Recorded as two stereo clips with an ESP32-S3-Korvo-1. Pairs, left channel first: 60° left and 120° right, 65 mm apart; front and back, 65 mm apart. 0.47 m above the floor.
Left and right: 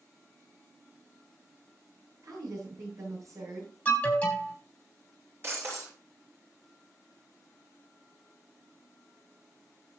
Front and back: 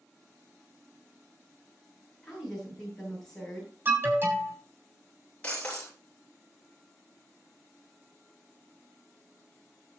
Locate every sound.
2.2 s a woman speaking: 85° right, 8 m
3.9 s an alarm: 125° left, 4 m
5.4 s breaking glass: 70° right, 6 m